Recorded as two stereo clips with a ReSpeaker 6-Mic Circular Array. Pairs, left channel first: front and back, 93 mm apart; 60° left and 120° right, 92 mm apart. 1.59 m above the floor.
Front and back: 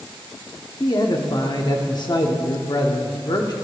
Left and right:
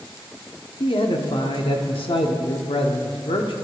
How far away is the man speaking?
About 0.9 m.